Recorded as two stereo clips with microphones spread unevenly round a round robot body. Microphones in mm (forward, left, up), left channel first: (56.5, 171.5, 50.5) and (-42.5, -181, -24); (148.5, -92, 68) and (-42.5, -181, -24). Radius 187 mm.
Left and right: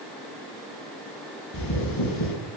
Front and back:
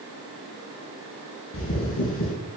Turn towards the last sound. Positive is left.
turn(degrees=40)